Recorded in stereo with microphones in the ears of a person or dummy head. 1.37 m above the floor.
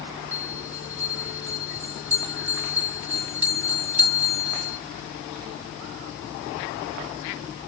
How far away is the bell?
About 1.6 m.